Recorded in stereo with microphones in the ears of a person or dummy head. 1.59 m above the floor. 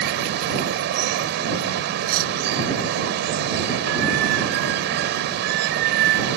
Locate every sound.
0.0 s running water: 60° right (ahead or behind)
2.0 s cutlery clinking: 60° right (ahead or behind)